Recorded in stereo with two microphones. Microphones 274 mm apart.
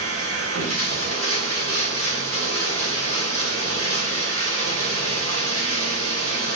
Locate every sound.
0.0 s running water: 50° right (ahead or behind), 3 m